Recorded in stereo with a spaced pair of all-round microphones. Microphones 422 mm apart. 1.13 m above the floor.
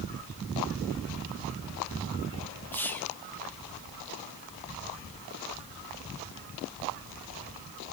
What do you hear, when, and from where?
2.7 s whispering: 5° left (ahead or behind), 1.7 m